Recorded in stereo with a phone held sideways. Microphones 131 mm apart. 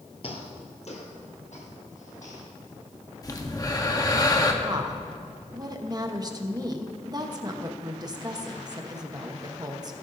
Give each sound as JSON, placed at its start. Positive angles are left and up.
{"t": 0.2, "sound": "footsteps", "side_deg": 45, "distance_m": 1.5}
{"t": 3.2, "sound": "breathing", "side_deg": 30, "distance_m": 1.0}
{"t": 4.6, "sound": "a woman speaking", "side_deg": -30, "distance_m": 1.0}